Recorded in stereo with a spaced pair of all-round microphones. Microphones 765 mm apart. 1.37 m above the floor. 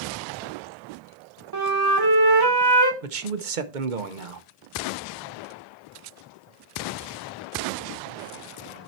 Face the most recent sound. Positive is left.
turn(degrees=-80)